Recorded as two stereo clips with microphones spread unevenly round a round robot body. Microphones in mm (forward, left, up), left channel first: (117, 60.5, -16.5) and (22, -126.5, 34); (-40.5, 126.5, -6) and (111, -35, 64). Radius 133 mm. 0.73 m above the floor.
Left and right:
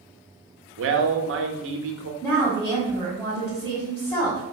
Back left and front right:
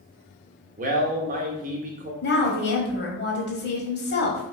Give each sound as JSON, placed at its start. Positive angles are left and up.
{"t": 0.8, "sound": "a man speaking", "azimuth_deg": -110, "distance_m": 0.7}
{"t": 2.2, "sound": "a woman speaking", "azimuth_deg": 135, "distance_m": 1.5}